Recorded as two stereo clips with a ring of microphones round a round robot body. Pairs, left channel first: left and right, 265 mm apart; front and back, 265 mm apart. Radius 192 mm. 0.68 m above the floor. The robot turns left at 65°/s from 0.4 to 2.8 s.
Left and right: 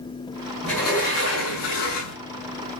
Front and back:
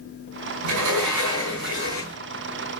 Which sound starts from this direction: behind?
A sliding door, at 0.6 s.